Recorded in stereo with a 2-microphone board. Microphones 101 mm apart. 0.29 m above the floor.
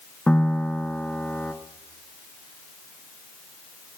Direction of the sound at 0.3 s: 10° left (ahead or behind).